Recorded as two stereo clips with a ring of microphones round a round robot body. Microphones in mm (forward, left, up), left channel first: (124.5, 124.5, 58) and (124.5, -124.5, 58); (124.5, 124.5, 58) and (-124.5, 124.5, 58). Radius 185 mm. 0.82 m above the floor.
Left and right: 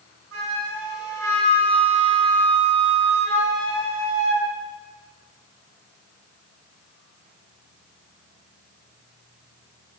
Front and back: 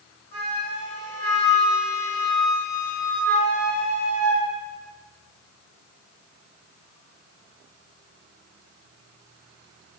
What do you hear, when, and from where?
0.3 s a flute: 55° right, 1.3 m